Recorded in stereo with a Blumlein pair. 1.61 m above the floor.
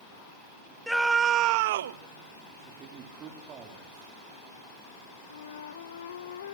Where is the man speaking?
30° right, 4 m.